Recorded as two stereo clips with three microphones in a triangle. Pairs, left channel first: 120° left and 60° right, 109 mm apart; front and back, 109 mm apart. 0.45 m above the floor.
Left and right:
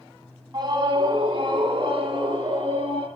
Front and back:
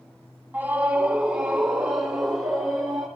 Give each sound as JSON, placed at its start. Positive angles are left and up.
{"t": 0.5, "sound": "a scream", "azimuth_deg": -110, "distance_m": 3.0}